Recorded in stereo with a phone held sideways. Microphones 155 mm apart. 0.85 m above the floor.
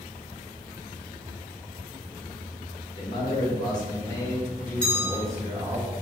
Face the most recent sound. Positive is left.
turn(degrees=5)  # may be behind; listen again after turning